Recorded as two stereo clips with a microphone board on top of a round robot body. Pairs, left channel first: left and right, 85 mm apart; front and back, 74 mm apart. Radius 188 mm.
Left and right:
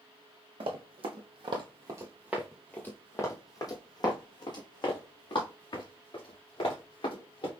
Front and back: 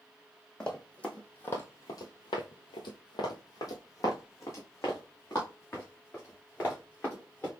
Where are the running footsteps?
80° right, 1.1 m; by 7.5 s 65° left, 3 m.